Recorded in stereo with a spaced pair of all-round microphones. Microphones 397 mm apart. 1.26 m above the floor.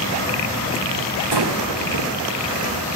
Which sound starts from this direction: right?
Breathing, at 1.3 s.